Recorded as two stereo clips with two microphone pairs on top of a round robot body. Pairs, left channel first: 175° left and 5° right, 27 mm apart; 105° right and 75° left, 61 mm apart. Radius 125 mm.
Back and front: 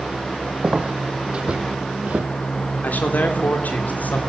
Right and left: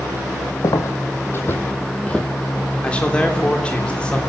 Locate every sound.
0.6 s footsteps: 65° right, 2 m; by 2.3 s 25° right, 1.5 m
2.8 s a man speaking: 175° right, 3.5 m